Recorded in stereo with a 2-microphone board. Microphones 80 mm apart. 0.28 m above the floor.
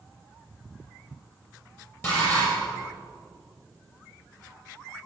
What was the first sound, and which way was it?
Dishes clattering, 30° left (ahead or behind).